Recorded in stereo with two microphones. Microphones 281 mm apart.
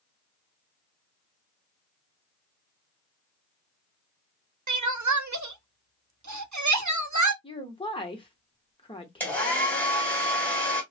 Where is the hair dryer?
5° left (ahead or behind), 1.9 m.